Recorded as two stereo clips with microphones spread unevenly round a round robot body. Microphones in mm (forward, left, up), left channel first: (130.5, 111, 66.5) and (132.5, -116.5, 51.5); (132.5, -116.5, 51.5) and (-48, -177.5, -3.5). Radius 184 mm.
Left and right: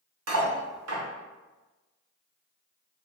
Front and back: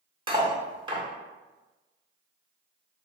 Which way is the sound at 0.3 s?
95° right.